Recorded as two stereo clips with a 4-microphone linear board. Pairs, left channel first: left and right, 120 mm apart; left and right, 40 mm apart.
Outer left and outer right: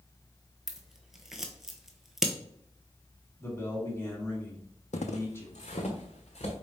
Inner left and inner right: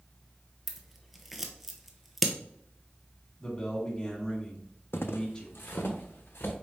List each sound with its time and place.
0.7 s scissors: 5° right (ahead or behind), 0.7 m
3.4 s a man speaking: 20° left (ahead or behind), 1.2 m
4.9 s footsteps: 80° left, 0.5 m; by 6.5 s 65° left (ahead or behind), 1.5 m